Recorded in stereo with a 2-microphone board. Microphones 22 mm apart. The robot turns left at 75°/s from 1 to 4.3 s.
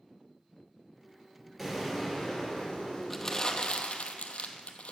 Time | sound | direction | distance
1.6 | an explosion | 175° left | 2.5 m
3.1 | crumpling | 10° left (ahead or behind) | 0.7 m